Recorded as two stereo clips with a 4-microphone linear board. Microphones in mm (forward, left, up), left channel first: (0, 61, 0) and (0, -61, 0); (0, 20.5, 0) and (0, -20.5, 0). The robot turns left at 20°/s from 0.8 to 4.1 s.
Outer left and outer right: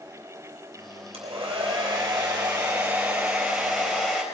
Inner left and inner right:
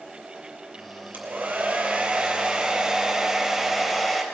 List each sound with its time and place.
1.1 s a hair dryer: 125° right, 3.5 m; by 4.2 s 175° left, 3.5 m